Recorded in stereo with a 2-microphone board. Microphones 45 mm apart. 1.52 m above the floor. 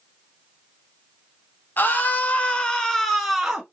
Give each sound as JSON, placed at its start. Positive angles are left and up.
{"t": 1.8, "sound": "a scream", "side_deg": 45, "distance_m": 1.1}